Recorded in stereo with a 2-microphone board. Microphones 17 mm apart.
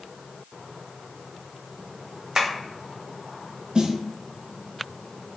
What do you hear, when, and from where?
2.4 s tapping: 35° right (ahead or behind), 0.9 m
3.8 s a snare drum: 50° right (ahead or behind), 0.5 m